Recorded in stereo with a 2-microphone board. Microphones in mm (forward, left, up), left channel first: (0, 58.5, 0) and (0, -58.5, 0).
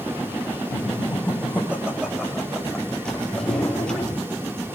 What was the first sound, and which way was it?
Laughter, 20° right (ahead or behind).